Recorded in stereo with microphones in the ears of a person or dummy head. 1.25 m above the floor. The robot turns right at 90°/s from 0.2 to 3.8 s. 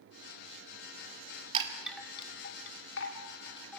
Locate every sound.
1.5 s a chime: 25° right (ahead or behind), 2 m; by 3.8 s centre (ahead or behind), 2 m